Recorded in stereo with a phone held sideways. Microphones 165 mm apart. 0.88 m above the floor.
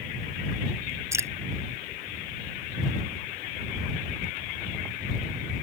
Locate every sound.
1.1 s dripping: 15° right (ahead or behind)